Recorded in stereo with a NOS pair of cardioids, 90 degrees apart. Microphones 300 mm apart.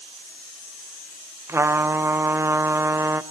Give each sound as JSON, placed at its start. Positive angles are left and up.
{"t": 1.5, "sound": "a trumpet", "azimuth_deg": -10, "distance_m": 0.7}